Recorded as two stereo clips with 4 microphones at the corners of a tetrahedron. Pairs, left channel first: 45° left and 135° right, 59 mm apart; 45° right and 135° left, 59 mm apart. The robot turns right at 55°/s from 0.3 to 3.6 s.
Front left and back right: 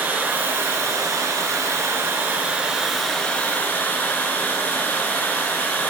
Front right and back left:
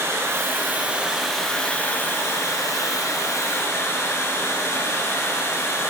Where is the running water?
165° left, 1.5 m; by 5.9 s 15° right, 1.5 m.